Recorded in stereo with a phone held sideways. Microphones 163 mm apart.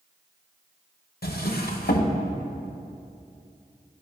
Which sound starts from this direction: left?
A drawer, at 1.2 s.